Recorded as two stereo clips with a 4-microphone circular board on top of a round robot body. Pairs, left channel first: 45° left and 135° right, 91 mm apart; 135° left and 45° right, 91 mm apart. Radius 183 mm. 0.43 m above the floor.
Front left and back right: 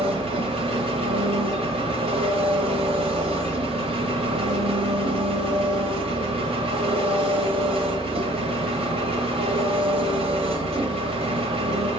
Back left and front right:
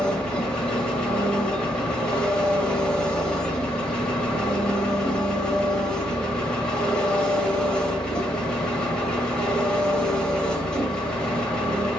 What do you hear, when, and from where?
0.0 s an engine running: 145° right, 0.8 m